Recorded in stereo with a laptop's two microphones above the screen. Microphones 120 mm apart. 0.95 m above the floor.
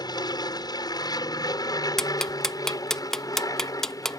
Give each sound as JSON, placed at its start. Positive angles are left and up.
{"t": 0.0, "sound": "an aircraft", "side_deg": 35}
{"t": 2.0, "sound": "ticking", "side_deg": 5}